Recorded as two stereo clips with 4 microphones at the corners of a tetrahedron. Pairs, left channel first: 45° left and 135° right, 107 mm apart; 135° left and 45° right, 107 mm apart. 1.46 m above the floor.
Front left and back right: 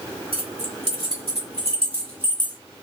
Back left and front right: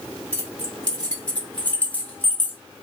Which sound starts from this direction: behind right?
Keys jangling, at 0.3 s.